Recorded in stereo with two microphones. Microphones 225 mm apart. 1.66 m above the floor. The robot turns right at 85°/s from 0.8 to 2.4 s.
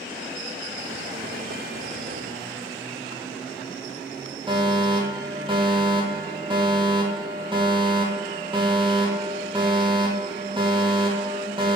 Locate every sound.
4.5 s a fire alarm: 25° right (ahead or behind), 4 m